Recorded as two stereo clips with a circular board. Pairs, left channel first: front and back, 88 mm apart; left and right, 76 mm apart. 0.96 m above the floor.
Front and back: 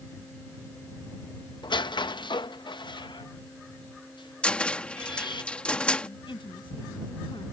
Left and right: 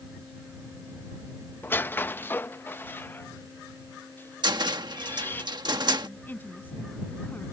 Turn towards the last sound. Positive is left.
turn(degrees=25)